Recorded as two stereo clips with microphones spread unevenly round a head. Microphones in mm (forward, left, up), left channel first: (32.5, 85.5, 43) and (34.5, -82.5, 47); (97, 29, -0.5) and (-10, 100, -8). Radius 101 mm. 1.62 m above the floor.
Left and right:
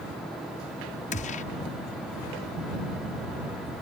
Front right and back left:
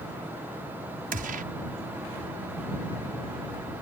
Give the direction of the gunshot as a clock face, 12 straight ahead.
7 o'clock.